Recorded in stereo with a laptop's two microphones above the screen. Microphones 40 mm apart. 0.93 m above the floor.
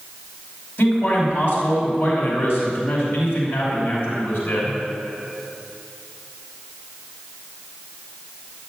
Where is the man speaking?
65° left (ahead or behind), 5 m.